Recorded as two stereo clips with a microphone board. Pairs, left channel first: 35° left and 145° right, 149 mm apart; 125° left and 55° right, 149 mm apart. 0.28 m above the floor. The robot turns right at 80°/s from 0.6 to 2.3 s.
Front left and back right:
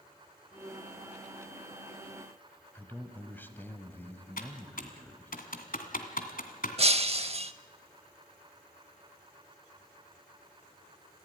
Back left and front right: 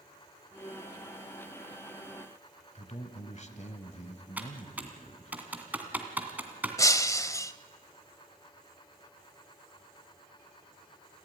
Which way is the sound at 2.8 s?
110° left.